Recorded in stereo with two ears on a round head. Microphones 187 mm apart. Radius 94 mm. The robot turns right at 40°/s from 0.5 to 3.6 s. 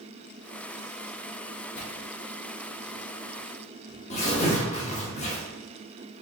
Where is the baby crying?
I don't hear a baby crying.